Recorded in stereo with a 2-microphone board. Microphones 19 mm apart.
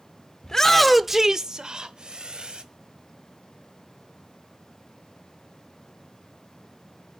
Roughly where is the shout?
Left.